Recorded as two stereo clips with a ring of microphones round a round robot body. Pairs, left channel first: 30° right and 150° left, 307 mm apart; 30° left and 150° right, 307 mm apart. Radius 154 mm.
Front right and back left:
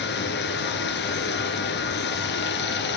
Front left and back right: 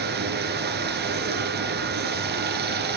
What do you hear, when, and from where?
0.0 s running water: 90° right, 1.6 m